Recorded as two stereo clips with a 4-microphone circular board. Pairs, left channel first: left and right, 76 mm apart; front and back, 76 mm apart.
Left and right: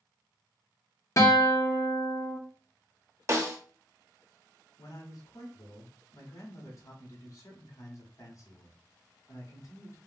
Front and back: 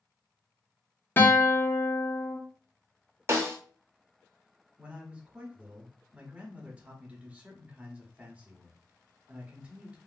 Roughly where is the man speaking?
Left.